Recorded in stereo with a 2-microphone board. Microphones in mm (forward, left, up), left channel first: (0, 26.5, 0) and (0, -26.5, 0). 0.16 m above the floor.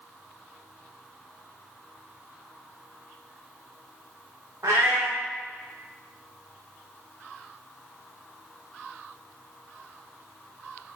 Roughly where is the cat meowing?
Right.